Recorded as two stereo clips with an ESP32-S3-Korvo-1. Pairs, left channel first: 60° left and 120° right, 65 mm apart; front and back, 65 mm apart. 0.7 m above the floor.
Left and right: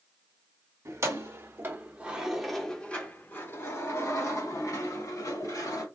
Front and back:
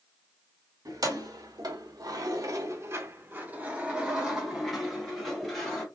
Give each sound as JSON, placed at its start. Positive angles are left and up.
{"t": 0.8, "sound": "keys jangling", "azimuth_deg": -160, "distance_m": 1.3}